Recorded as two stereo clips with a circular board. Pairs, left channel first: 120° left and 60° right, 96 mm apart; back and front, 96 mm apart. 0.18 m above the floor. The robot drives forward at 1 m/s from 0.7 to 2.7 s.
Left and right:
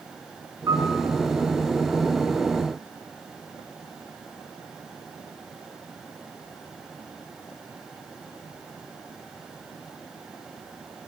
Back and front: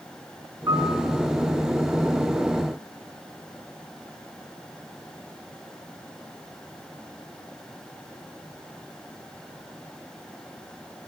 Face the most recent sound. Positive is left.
turn(degrees=-160)